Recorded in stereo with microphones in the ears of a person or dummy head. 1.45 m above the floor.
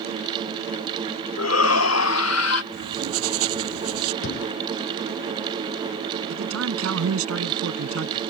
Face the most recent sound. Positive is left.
turn(degrees=-90)